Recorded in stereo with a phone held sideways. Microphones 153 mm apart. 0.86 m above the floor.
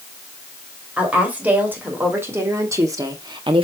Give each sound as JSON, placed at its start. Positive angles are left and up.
{"t": 1.0, "sound": "a woman speaking", "side_deg": -10, "distance_m": 3.0}